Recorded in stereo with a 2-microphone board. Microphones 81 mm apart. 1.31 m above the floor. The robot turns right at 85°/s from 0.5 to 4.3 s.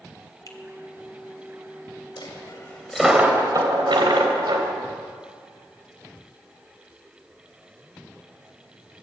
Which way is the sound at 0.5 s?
45° left (ahead or behind).